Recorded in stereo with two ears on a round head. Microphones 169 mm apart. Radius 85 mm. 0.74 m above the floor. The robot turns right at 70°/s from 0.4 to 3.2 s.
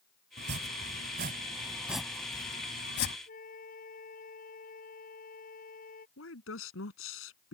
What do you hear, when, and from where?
0.4 s chopping: 70° right (ahead or behind); by 3.2 s 85° left
3.3 s a flute: 45° left (ahead or behind)
6.2 s a woman speaking: 80° left